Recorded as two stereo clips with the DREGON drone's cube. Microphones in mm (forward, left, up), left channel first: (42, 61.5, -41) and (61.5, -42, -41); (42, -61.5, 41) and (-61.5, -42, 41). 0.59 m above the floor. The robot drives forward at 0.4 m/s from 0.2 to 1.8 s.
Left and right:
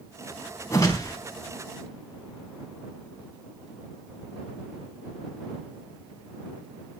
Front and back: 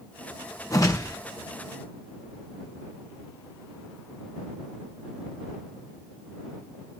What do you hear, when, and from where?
0.7 s a whoosh: 45° left, 3.5 m